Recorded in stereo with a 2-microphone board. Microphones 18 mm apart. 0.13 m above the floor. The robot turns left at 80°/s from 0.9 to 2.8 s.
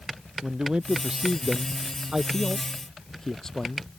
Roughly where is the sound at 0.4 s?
Behind right.